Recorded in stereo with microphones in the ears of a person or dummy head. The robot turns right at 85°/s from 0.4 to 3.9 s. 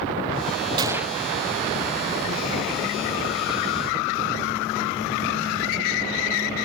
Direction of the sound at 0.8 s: 25° right.